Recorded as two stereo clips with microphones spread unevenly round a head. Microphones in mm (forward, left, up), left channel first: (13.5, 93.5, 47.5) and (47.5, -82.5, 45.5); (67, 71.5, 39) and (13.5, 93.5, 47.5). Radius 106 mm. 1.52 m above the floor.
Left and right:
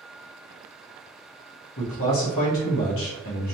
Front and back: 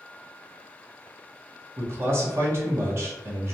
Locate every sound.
1.8 s a man speaking: 120° left, 1.1 m